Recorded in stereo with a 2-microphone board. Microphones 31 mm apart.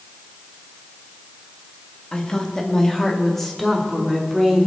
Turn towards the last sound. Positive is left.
turn(degrees=0)  # may be behind; listen again after turning